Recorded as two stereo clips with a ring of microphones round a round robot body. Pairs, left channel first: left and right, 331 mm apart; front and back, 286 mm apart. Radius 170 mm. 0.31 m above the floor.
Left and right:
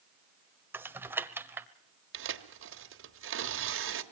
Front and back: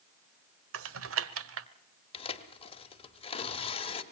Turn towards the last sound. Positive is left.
turn(degrees=-60)